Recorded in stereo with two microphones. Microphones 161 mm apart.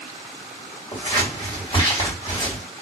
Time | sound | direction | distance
0.9 | scissors | 35° left (ahead or behind) | 1.9 m